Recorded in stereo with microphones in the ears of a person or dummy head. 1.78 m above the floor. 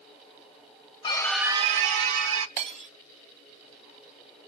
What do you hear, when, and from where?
1.0 s a scream: 25° left (ahead or behind), 0.8 m; by 2.5 s 65° right (ahead or behind), 1.4 m
2.6 s breaking glass: 30° right (ahead or behind), 1.1 m